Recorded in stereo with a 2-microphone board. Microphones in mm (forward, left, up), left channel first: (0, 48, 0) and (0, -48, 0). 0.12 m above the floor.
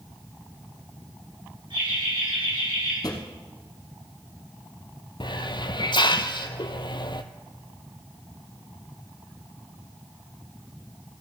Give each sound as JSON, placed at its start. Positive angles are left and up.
{"t": 1.7, "sound": "laughter", "side_deg": -60, "distance_m": 7.0}
{"t": 3.0, "sound": "a drawer", "side_deg": 40, "distance_m": 1.5}
{"t": 5.2, "sound": "a hiss", "side_deg": 50, "distance_m": 0.6}